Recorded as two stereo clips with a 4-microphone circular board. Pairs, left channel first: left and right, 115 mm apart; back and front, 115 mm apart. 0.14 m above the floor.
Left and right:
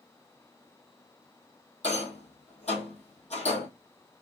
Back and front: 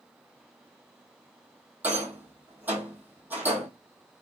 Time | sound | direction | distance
1.8 | a rattle | 75° left | 1.1 m